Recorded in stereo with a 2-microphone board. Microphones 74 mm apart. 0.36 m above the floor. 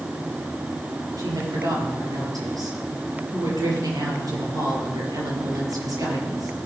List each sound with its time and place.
1.2 s a woman speaking: 60° right (ahead or behind), 6.5 m